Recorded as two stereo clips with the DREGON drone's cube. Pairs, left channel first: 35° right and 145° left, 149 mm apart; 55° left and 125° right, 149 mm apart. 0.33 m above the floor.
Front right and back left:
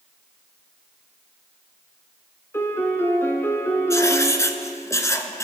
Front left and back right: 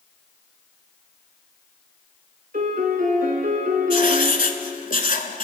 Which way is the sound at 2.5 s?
110° right.